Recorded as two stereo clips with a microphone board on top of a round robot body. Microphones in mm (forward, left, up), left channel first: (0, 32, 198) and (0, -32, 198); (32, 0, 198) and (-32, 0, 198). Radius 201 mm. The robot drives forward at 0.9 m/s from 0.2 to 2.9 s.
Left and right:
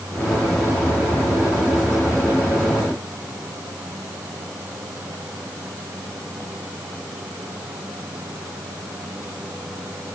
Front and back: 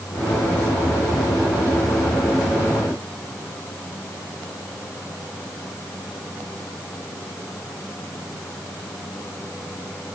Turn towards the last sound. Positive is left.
No sound to turn to.